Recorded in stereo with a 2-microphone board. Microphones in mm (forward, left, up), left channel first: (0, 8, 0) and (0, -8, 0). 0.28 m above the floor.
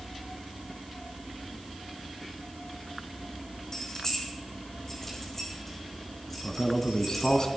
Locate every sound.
3.7 s keys jangling: 35° left (ahead or behind), 8.5 m; by 7.4 s 10° left (ahead or behind), 12.5 m
6.4 s a man speaking: 45° left (ahead or behind), 2 m